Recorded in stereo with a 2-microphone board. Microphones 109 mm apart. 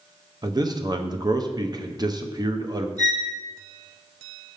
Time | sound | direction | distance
0.4 | a man speaking | 40° right (ahead or behind) | 0.7 m
3.0 | a violin | 35° right (ahead or behind) | 2 m